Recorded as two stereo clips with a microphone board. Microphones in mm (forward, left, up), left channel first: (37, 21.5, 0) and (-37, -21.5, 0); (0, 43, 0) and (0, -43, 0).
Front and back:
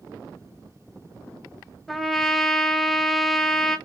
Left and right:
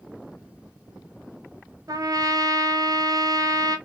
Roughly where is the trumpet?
Ahead right.